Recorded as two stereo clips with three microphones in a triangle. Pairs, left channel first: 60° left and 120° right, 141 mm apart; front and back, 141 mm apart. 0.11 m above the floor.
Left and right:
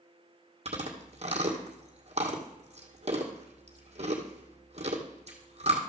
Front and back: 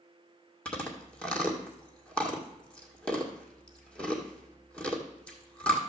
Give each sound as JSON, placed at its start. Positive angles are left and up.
{"t": 0.7, "sound": "chewing", "azimuth_deg": -80, "distance_m": 2.0}